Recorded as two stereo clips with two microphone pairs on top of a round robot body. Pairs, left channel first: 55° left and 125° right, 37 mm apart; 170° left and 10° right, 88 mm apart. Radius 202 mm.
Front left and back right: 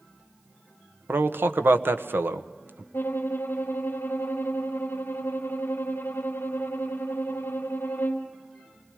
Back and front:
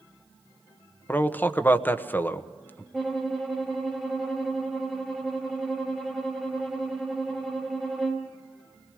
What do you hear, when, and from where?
1.1 s a man speaking: 125° right, 1.4 m
2.9 s a violin: 70° left, 0.8 m